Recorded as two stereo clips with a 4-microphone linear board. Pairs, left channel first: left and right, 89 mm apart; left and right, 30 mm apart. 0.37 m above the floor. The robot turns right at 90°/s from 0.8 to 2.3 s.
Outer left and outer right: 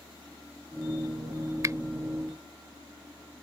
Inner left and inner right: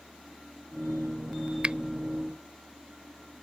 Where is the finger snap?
40° right (ahead or behind).